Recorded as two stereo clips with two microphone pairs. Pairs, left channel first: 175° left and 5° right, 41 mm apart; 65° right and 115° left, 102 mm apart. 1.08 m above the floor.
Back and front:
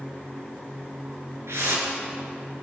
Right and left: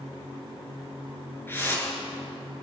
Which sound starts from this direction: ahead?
A whoosh, at 1.5 s.